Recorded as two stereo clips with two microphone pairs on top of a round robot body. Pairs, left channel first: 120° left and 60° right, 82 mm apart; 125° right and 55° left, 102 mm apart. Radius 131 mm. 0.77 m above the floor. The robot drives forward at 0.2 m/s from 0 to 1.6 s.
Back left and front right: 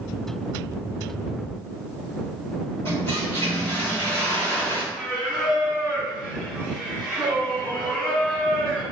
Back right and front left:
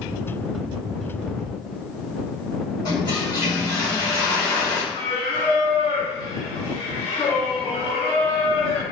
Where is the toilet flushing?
175° right, 3.5 m.